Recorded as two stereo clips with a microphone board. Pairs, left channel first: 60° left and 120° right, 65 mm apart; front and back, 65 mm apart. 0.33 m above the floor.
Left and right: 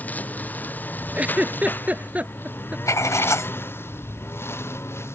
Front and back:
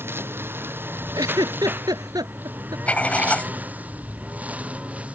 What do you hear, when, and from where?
0.0 s a lawn mower: 125° left; by 5.2 s 110° left
1.1 s a giggle: 170° left
2.9 s writing: 60° left